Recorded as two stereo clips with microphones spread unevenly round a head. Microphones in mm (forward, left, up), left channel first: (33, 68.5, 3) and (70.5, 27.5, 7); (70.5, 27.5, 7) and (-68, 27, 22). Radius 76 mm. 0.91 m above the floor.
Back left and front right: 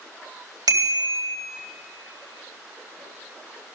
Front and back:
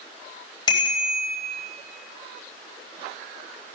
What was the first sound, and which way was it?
A bicycle bell, 65° right.